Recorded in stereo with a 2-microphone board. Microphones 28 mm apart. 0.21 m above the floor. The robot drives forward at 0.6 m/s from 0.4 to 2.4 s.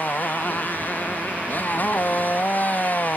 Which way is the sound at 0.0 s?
85° left.